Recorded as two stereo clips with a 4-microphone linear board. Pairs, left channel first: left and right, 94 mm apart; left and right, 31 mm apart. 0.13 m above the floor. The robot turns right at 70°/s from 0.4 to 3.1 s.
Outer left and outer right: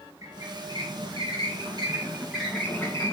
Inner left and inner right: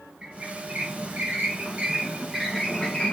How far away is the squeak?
About 4.5 m.